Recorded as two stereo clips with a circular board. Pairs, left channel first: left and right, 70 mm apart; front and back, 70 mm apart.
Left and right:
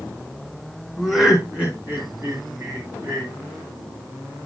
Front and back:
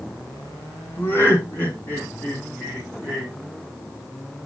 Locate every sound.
1.0 s laughter: 10° left, 1.9 m; by 3.3 s 75° right, 3.5 m